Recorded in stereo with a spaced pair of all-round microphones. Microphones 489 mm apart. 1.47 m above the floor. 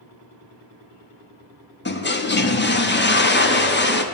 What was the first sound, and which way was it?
A toilet flushing, 25° left (ahead or behind).